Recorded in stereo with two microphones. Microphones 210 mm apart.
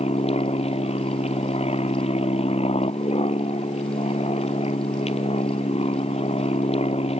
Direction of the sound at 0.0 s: 30° left (ahead or behind).